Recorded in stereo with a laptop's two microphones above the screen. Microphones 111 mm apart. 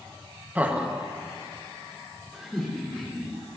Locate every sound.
0.6 s laughter: 15° right (ahead or behind), 0.9 m; by 3.3 s centre (ahead or behind), 3.5 m